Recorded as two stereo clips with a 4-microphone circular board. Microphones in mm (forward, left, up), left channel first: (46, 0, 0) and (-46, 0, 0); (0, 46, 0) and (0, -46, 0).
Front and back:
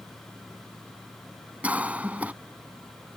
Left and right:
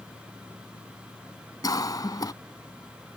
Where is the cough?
110° left.